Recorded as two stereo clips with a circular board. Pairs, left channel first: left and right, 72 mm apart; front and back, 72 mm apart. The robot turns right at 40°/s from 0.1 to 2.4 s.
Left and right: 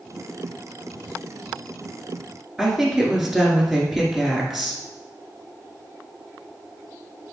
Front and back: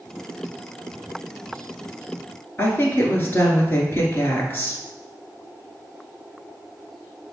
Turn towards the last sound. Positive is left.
turn(degrees=-5)